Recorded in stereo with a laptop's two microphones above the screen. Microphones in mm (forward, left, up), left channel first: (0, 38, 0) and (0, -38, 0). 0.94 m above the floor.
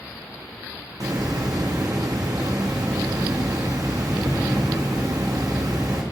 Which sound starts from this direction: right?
A hiss, at 1.0 s.